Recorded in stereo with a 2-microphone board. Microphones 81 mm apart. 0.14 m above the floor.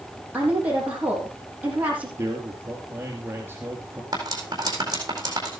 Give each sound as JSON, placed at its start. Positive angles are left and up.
{"t": 0.3, "sound": "a woman speaking", "side_deg": -15, "distance_m": 6.5}
{"t": 2.2, "sound": "a man speaking", "side_deg": -30, "distance_m": 2.5}
{"t": 4.1, "sound": "cutlery clinking", "side_deg": -45, "distance_m": 4.0}